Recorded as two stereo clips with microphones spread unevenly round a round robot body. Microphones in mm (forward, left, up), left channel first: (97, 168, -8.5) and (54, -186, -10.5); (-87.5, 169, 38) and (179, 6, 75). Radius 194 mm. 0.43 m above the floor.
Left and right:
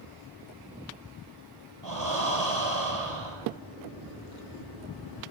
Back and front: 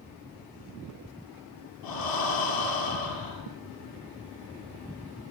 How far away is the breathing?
About 7.5 m.